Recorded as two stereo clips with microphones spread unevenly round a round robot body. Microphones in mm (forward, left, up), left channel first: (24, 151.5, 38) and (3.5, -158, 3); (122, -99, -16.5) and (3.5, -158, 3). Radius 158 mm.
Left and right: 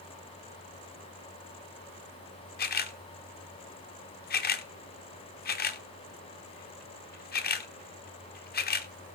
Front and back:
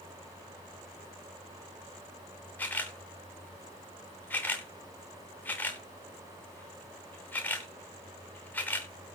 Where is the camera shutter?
65° left, 1.0 m.